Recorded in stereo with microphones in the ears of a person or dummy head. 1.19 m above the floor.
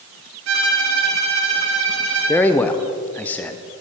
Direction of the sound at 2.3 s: 15° left (ahead or behind).